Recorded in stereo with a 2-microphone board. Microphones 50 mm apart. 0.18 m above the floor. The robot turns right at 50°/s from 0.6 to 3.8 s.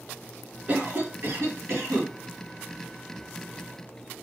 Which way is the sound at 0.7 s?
145° right.